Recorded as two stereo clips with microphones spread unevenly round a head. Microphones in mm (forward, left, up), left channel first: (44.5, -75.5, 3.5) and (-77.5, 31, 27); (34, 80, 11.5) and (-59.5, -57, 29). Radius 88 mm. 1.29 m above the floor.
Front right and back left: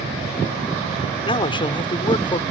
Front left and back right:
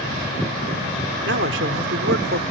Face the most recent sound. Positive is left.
turn(degrees=-105)